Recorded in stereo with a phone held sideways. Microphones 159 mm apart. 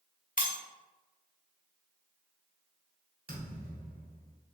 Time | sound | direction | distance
0.4 | breaking glass | 60° left (ahead or behind) | 0.9 m
3.3 | a thud | 70° right (ahead or behind) | 1.8 m